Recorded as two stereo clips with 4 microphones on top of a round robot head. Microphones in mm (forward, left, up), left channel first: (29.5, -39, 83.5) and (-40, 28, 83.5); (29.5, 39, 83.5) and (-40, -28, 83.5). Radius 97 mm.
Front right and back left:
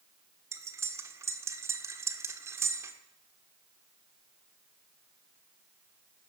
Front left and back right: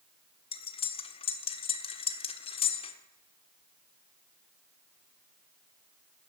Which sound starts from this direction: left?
Cutlery clinking, at 0.5 s.